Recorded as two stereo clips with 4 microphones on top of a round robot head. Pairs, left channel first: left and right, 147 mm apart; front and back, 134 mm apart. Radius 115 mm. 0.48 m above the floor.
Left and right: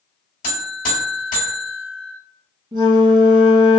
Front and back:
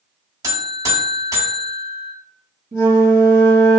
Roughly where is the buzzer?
Behind left.